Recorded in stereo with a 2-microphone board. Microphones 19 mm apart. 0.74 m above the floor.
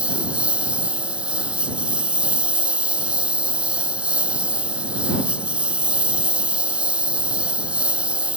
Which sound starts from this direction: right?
A lawn mower, at 0.0 s.